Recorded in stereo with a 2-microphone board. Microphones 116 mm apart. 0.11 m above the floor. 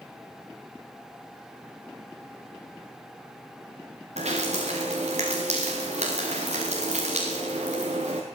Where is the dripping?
85° right, 6 m.